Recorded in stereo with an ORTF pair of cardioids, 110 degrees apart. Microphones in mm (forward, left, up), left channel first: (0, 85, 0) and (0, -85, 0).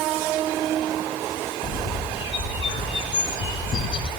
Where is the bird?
30° left, 1.0 m.